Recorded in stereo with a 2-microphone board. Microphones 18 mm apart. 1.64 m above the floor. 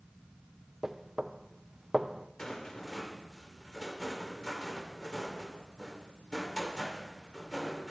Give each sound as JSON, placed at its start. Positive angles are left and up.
{"t": 0.8, "sound": "knocking", "side_deg": -25, "distance_m": 0.6}
{"t": 2.4, "sound": "a rattle", "side_deg": 40, "distance_m": 2.5}